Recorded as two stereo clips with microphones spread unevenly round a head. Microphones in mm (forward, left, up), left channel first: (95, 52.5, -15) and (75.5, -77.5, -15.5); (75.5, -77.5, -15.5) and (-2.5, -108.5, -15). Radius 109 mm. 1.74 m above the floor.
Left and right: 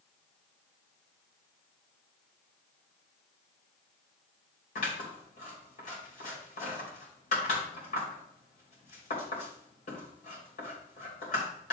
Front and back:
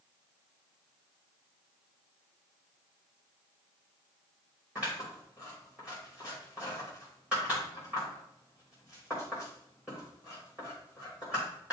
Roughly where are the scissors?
Behind left.